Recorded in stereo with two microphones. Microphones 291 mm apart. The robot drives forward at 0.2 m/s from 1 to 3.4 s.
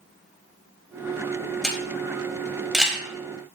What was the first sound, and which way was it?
A camera shutter, centre (ahead or behind).